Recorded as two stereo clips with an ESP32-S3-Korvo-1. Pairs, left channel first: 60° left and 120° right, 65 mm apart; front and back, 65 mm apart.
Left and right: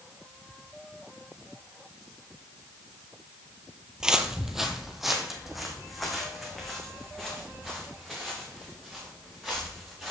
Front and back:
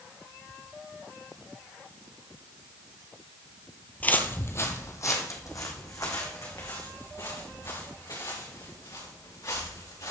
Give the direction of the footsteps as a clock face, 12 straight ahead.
2 o'clock.